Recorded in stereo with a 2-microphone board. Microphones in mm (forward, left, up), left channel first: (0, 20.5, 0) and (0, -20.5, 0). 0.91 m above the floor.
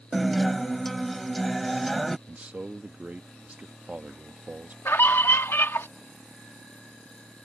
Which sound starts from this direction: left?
A scream, at 4.8 s.